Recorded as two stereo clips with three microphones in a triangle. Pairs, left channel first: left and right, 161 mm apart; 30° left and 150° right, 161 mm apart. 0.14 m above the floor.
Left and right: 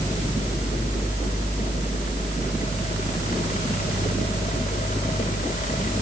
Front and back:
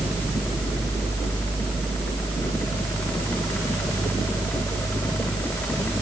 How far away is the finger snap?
No finger snap in this recording.